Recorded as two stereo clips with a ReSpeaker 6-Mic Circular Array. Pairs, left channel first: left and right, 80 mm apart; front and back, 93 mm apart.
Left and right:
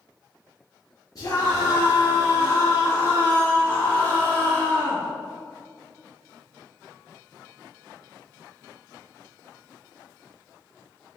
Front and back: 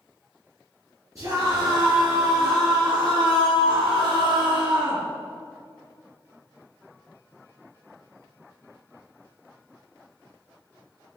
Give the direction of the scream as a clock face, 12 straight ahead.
8 o'clock.